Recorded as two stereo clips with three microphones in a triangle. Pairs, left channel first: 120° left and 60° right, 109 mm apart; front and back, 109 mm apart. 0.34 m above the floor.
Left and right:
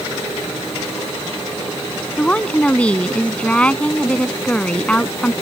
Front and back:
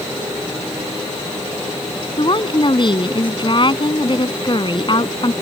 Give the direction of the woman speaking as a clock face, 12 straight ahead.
11 o'clock.